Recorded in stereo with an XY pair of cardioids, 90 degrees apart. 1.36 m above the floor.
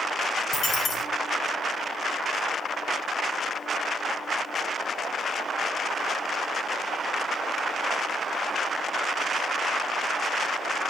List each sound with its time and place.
0.5 s a dropped coin: 65° left, 3 m